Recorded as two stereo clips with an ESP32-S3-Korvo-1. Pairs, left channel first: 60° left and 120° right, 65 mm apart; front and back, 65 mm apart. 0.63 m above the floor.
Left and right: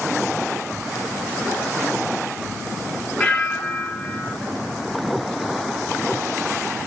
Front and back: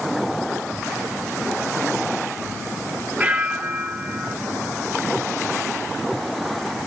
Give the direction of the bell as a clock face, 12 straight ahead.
8 o'clock.